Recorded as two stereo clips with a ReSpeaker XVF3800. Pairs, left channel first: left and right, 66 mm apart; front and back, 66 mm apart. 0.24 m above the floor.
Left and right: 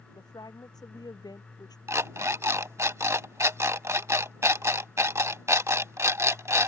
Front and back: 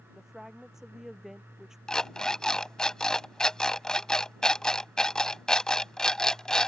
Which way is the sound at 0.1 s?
95° left.